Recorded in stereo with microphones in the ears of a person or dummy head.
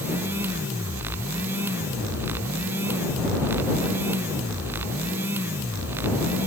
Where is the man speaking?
I don't hear a man speaking.